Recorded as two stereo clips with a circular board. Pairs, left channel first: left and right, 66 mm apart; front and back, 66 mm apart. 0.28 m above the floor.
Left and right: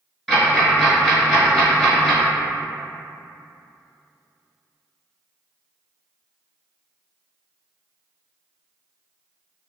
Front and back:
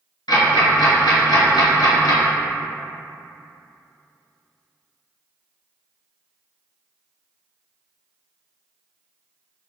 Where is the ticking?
5° left, 1.1 m.